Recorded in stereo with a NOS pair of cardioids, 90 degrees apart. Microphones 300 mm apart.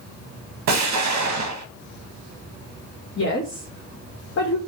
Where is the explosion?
65° right, 0.7 m.